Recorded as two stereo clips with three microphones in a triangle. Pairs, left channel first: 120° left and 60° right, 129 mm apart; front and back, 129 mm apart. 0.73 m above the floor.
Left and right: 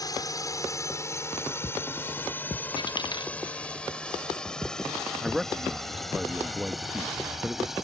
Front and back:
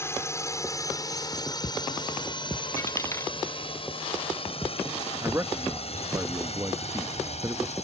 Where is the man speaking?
145° right.